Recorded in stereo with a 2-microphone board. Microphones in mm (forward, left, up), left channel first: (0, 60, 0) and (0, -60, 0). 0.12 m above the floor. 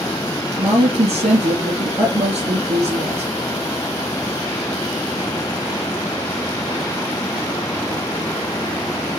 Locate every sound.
0.6 s a woman speaking: 55° right (ahead or behind), 3 m